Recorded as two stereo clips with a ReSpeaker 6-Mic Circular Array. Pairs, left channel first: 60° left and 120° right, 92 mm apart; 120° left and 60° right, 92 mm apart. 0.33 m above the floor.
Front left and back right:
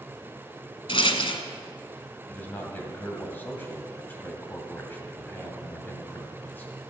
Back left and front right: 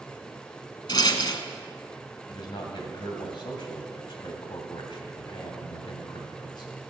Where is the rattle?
80° left, 1.0 m.